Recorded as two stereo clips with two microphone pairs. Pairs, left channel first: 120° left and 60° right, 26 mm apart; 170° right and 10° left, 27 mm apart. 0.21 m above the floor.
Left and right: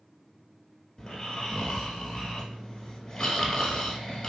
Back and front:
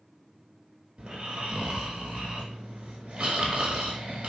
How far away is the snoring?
About 0.7 m.